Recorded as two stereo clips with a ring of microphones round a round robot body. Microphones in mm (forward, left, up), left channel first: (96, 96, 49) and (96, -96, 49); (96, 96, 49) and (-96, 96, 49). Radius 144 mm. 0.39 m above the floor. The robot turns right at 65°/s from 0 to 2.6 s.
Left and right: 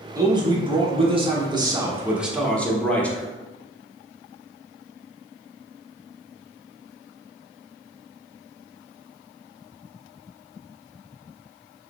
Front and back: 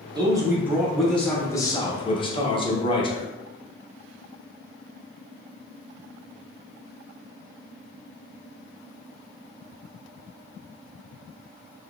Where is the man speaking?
145° right, 0.9 m; by 3.3 s 15° left, 0.9 m.